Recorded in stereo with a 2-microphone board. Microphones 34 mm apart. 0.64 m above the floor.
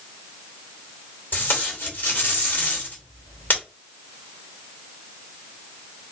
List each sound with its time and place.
1.3 s tape being pulled: 65° left (ahead or behind), 2.5 m